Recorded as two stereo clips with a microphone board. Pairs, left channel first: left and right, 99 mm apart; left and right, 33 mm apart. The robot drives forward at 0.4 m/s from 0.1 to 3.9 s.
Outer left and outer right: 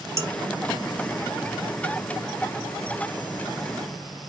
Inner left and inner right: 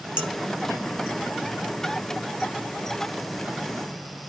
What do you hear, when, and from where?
0.2 s dishes clattering: 30° right (ahead or behind), 1.1 m